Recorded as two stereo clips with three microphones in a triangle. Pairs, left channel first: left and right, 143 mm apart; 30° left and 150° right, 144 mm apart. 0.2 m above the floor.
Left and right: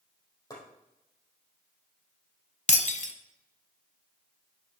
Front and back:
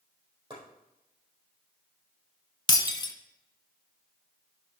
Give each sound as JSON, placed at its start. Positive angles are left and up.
{"t": 0.5, "sound": "chopping", "azimuth_deg": 160, "distance_m": 4.5}
{"t": 2.7, "sound": "breaking glass", "azimuth_deg": 80, "distance_m": 0.8}